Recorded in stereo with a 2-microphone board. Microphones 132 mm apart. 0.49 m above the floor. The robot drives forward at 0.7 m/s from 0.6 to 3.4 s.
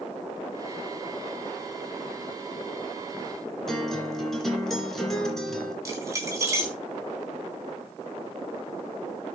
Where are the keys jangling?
25° right (ahead or behind), 3.5 m.